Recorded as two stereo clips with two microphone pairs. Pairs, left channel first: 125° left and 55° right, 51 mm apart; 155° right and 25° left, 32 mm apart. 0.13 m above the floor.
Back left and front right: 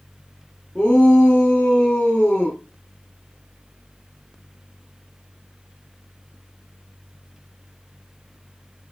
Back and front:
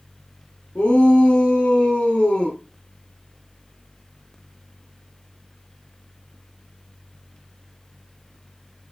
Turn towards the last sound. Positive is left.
turn(degrees=-170)